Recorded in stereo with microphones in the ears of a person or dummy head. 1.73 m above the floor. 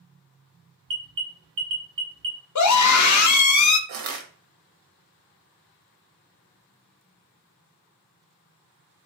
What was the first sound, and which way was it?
An alarm, 65° right (ahead or behind).